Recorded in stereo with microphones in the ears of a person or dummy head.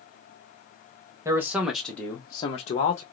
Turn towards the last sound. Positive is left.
turn(degrees=50)  # may be behind; listen again after turning